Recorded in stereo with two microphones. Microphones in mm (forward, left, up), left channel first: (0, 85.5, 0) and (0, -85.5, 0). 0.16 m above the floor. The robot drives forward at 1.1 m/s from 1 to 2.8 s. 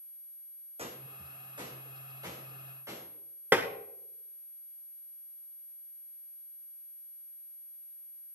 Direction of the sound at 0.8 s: 35° right (ahead or behind).